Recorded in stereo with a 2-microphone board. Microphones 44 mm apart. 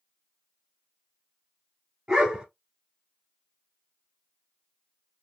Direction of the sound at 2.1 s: 20° right (ahead or behind).